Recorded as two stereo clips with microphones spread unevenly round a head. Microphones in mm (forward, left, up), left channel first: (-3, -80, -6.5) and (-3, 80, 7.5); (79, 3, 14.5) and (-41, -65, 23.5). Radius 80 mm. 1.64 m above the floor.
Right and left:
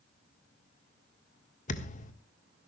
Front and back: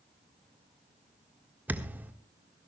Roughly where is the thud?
Right.